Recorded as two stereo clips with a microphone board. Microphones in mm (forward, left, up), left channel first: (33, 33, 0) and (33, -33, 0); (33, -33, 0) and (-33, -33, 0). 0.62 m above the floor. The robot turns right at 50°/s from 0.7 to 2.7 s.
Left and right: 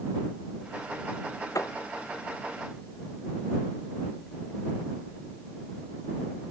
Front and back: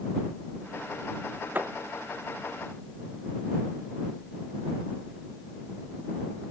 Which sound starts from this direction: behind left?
A thud, at 1.6 s.